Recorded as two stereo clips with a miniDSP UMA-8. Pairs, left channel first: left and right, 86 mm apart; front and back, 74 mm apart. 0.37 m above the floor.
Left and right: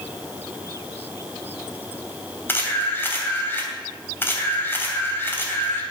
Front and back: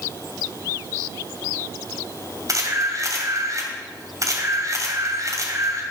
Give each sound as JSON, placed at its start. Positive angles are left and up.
{"t": 2.5, "sound": "a camera shutter", "azimuth_deg": 150, "distance_m": 2.5}